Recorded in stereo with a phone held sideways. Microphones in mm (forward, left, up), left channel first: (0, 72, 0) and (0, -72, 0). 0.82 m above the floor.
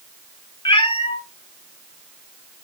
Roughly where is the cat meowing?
Left.